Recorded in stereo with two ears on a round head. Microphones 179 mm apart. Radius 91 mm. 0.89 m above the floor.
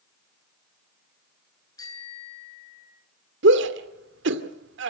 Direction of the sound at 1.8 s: 20° left (ahead or behind).